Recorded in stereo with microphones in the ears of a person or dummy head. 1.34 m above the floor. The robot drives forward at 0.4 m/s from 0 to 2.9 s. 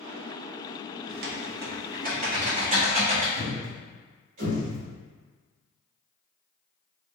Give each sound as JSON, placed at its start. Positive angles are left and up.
{"t": 1.1, "sound": "typing on a keyboard", "side_deg": -45, "distance_m": 0.5}
{"t": 3.4, "sound": "a thud", "side_deg": -55, "distance_m": 1.3}